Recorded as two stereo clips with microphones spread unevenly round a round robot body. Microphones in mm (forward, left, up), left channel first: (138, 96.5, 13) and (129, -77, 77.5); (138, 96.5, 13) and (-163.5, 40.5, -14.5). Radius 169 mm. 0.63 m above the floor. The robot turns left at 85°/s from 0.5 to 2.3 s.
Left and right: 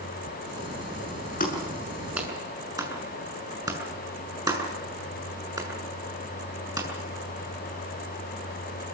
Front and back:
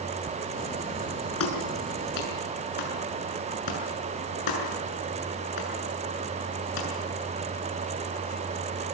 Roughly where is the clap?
Ahead left.